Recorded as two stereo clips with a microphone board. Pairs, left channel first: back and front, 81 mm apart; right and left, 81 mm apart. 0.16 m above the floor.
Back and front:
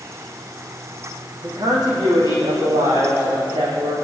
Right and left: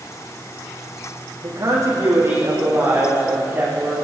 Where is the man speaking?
40° left, 7.5 m; by 4.0 s 20° left, 9.5 m.